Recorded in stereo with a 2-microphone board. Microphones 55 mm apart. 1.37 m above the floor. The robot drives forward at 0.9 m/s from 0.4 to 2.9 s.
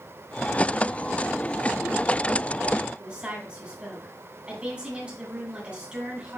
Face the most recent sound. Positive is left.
turn(degrees=-20)  # may be behind; listen again after turning